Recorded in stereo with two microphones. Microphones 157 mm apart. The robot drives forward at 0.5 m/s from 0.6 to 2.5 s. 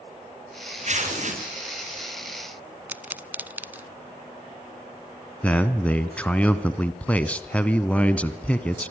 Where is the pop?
10° right (ahead or behind), 0.6 m.